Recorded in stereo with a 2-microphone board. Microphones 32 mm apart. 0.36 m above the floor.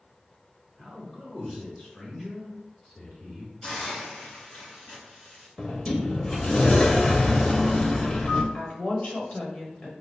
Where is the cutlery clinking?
I don't hear cutlery clinking.